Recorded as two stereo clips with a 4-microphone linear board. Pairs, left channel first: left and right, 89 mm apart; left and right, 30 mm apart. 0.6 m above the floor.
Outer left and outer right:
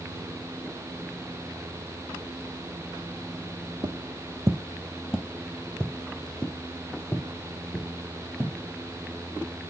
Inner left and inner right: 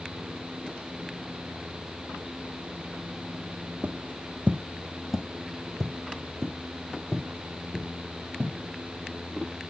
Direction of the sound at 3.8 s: 55° right (ahead or behind).